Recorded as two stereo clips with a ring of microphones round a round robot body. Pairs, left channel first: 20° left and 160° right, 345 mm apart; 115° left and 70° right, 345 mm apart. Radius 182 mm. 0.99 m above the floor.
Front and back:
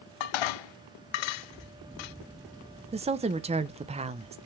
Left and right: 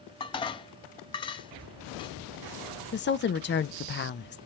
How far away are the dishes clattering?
About 0.6 m.